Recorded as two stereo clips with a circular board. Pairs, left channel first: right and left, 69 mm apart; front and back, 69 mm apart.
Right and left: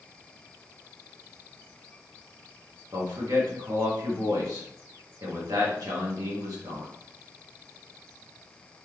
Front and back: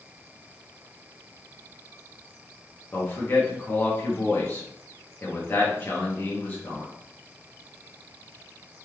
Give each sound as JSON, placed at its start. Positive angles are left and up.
{"t": 2.9, "sound": "a man speaking", "azimuth_deg": 60, "distance_m": 2.0}